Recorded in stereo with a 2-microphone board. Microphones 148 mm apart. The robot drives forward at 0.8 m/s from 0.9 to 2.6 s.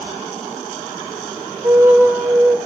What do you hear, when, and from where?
1.6 s a flute: 20° right (ahead or behind), 0.6 m; by 2.6 s 10° right (ahead or behind), 1.2 m